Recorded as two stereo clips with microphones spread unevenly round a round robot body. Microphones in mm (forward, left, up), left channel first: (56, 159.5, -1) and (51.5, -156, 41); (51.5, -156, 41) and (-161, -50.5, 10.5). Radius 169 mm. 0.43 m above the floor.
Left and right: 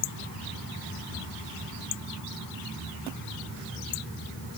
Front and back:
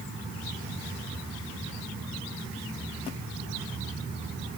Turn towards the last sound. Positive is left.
No sound to turn to.